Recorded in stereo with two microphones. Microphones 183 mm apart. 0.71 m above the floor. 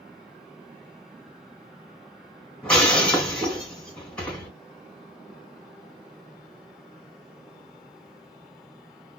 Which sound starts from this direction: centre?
Breaking glass, at 2.6 s.